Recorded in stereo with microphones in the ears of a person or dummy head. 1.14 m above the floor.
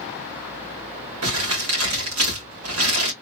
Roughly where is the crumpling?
Right.